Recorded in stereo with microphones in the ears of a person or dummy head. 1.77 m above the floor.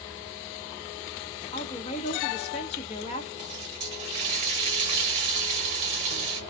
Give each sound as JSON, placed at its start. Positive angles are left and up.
{"t": 1.5, "sound": "a woman speaking", "side_deg": 40, "distance_m": 0.9}
{"t": 3.4, "sound": "a running tap", "side_deg": -30, "distance_m": 0.9}